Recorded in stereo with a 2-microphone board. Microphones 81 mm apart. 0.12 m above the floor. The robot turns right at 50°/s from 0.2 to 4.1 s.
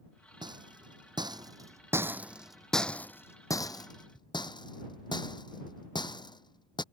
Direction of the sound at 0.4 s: 70° right (ahead or behind).